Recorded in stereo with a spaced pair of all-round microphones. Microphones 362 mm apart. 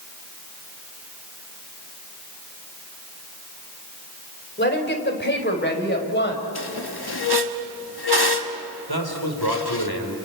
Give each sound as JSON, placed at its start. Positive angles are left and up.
{"t": 4.6, "sound": "a woman speaking", "side_deg": 30, "distance_m": 3.5}
{"t": 6.5, "sound": "a squeak", "side_deg": 85, "distance_m": 1.4}
{"t": 8.9, "sound": "a man speaking", "side_deg": 75, "distance_m": 3.5}